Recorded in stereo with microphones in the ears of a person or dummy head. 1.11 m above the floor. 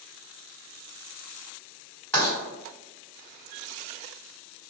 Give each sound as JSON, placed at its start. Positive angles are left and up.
{"t": 2.1, "sound": "writing", "side_deg": 15, "distance_m": 1.8}